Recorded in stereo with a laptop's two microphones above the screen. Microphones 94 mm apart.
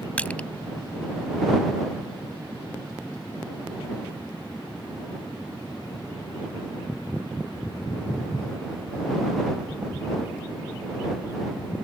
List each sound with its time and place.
0.2 s crushing: 15° left (ahead or behind)